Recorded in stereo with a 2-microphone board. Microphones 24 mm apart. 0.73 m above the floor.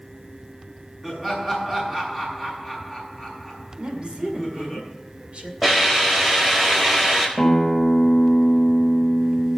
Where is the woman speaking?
50° right (ahead or behind), 2 m.